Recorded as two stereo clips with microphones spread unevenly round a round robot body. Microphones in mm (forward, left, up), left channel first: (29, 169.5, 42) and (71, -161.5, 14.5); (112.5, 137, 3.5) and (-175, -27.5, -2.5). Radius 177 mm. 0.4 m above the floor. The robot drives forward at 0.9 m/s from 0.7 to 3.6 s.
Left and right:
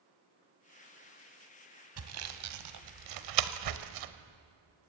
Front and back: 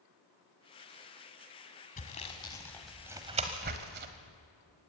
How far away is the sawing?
About 2 m.